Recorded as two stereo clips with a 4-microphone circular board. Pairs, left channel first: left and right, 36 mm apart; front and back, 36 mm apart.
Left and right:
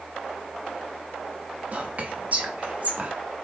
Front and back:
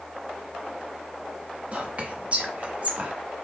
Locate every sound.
1.7 s whispering: 135° right, 0.8 m